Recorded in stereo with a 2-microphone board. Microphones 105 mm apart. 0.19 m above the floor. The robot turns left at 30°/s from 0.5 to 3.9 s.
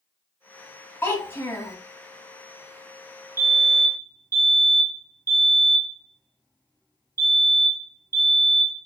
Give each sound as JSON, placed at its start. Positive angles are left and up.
{"t": 1.0, "sound": "a child speaking", "side_deg": 25, "distance_m": 0.8}
{"t": 3.4, "sound": "a fire alarm", "side_deg": -25, "distance_m": 2.0}